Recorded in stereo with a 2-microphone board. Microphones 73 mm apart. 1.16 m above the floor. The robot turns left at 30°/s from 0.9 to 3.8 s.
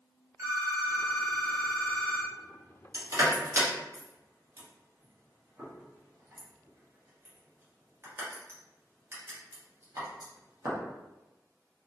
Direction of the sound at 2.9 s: 60° right (ahead or behind).